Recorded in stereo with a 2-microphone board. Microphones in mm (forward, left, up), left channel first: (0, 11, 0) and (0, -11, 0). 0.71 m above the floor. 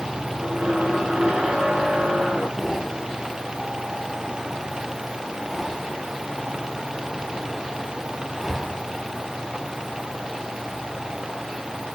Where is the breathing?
Centre (ahead or behind), 1.6 m.